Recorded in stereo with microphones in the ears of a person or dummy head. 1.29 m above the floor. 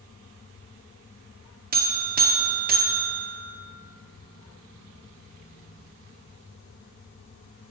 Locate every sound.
1.7 s a buzzer: 40° right (ahead or behind), 0.8 m